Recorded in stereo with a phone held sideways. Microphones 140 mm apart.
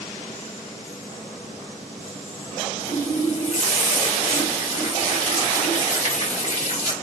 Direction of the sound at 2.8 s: 60° left (ahead or behind).